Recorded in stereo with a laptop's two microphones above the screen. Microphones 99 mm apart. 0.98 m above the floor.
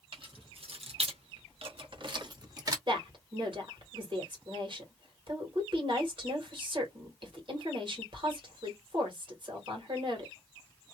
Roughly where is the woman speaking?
Right.